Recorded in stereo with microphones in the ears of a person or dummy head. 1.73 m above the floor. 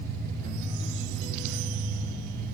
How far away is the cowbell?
I don't hear a cowbell.